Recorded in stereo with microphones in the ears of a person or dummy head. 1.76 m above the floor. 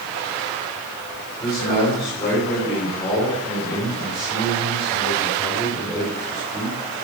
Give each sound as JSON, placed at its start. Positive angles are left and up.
{"t": 1.4, "sound": "a man speaking", "side_deg": 30, "distance_m": 8.0}